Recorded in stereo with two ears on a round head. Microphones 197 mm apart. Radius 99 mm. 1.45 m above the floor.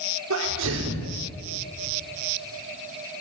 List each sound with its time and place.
0.3 s a sneeze: 90° right, 5 m